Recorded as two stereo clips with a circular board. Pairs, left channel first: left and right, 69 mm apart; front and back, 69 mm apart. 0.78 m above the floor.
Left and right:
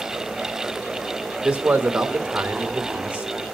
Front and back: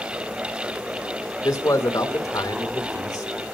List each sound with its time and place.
1.4 s a man speaking: 20° right, 2.5 m